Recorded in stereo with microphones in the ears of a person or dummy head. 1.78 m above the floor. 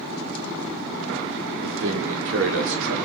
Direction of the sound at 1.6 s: 80° right.